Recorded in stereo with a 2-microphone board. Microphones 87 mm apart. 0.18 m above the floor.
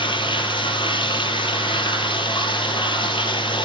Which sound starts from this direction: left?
Running water, at 0.0 s.